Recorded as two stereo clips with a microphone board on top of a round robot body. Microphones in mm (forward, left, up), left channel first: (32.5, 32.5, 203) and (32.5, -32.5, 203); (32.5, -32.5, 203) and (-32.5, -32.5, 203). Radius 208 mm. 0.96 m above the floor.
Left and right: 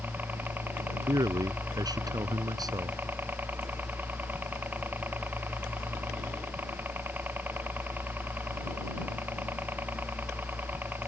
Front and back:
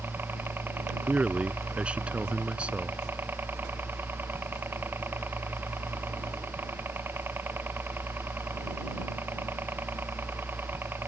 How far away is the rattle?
No rattle in this recording.